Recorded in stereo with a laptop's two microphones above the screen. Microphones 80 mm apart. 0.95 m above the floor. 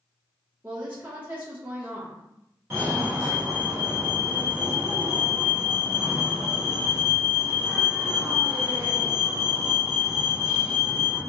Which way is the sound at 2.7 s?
25° right (ahead or behind).